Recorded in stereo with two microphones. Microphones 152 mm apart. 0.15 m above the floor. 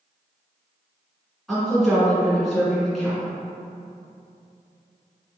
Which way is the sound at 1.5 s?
Centre (ahead or behind).